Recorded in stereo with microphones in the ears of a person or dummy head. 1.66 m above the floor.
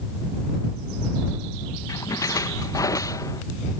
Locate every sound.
1.9 s a splash: 20° left (ahead or behind)